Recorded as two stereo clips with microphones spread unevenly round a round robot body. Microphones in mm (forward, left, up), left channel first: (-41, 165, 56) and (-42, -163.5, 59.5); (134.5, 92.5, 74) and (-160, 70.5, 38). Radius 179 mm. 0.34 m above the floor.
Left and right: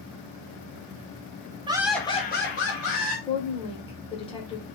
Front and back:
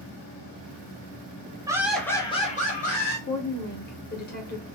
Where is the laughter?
140° right, 0.8 m; by 3.2 s 65° left, 1.5 m.